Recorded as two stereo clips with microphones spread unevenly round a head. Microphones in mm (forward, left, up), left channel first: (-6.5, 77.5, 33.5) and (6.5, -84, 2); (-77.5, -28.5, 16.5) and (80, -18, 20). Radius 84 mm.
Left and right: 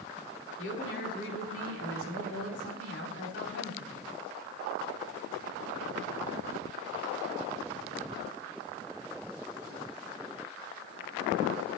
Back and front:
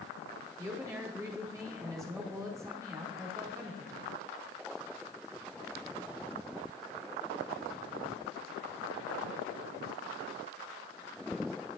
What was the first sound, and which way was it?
A woman speaking, 75° left.